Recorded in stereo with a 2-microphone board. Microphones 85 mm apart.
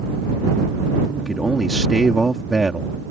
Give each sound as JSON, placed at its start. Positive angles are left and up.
{"t": 1.2, "sound": "a man speaking", "side_deg": -5}